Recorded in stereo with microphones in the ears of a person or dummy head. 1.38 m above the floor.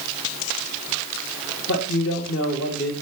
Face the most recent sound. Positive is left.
turn(degrees=60)  # may be behind; listen again after turning